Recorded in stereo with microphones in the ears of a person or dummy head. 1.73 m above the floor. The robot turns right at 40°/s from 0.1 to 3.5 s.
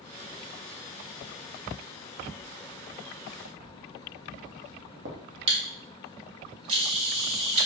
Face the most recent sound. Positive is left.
turn(degrees=-30)  # may be behind; listen again after turning